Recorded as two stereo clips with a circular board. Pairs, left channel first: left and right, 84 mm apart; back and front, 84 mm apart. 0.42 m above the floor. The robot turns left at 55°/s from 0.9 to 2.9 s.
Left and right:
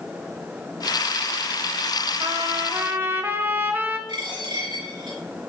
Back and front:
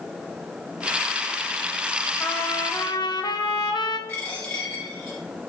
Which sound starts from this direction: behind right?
A trumpet, at 2.2 s.